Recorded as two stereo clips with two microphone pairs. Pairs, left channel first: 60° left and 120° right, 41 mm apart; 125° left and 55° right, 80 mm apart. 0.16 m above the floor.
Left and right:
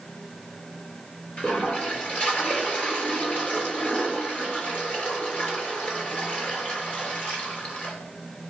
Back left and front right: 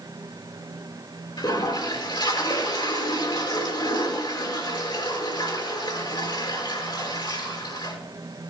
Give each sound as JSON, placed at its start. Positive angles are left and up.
{"t": 1.4, "sound": "a toilet flushing", "azimuth_deg": 110, "distance_m": 3.0}